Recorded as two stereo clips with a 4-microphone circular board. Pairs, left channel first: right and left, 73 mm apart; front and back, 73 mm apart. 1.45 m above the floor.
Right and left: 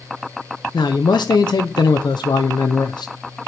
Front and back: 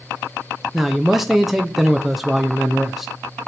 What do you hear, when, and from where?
0.7 s a man speaking: 95° right, 0.6 m